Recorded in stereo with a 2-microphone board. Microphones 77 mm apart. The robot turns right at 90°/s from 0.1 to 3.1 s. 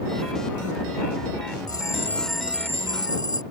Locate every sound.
1.7 s a bell: 120° left; by 3.4 s 110° right